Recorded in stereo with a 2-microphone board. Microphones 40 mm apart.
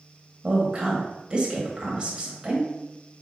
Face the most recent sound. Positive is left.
turn(degrees=-25)  # may be behind; listen again after turning